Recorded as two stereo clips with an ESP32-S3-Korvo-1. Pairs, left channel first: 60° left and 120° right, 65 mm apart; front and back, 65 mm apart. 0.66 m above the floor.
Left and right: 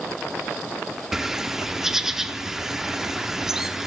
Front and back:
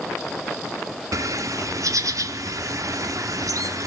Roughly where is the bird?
Behind left.